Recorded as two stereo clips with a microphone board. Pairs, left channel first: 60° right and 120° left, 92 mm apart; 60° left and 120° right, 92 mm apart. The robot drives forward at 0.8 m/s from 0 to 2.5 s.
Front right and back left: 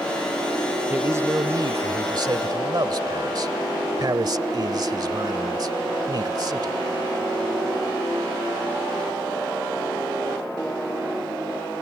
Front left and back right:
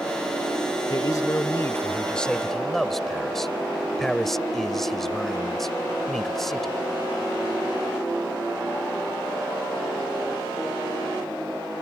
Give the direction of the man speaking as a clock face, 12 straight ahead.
10 o'clock.